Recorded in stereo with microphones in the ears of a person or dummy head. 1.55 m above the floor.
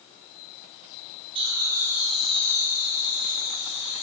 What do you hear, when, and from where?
1.4 s laughter: 30° right (ahead or behind), 2 m; by 4.0 s 60° left (ahead or behind), 2.5 m